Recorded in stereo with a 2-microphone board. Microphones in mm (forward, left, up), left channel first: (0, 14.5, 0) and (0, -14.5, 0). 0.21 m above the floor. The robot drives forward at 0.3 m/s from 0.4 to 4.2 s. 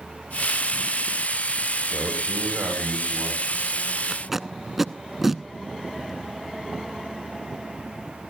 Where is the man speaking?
80° right, 8 m; by 3.8 s 75° right (ahead or behind), 8 m.